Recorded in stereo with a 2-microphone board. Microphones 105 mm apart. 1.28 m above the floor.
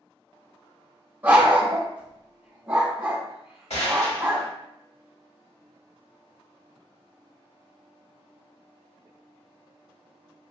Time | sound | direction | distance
1.2 | a dog barking | 15° right (ahead or behind) | 1.2 m
3.7 | a gunshot | 85° left | 1.7 m